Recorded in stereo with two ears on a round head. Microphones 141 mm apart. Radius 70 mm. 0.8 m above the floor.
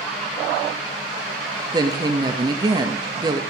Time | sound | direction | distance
1.7 | a woman speaking | 25° right (ahead or behind) | 0.9 m